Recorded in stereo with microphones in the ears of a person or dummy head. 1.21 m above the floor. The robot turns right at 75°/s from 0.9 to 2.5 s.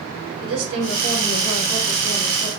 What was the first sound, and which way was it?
A woman speaking, 85° right.